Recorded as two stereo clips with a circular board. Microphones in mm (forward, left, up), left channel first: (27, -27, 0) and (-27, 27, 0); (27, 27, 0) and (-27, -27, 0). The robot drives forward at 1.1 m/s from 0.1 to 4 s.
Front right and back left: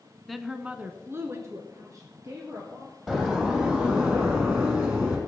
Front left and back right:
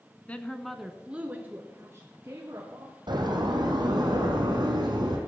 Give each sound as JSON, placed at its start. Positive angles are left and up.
{"t": 0.3, "sound": "a woman speaking", "azimuth_deg": 40, "distance_m": 1.0}
{"t": 3.1, "sound": "a door slam", "azimuth_deg": -145, "distance_m": 3.0}